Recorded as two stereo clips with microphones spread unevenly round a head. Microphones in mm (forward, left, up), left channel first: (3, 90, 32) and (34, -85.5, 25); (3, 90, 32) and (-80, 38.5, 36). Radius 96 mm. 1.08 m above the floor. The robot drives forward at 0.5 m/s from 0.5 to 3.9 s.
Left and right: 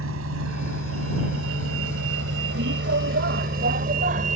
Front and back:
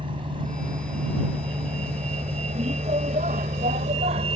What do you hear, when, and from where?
0.0 s a vehicle: 90° right; by 4.4 s 130° right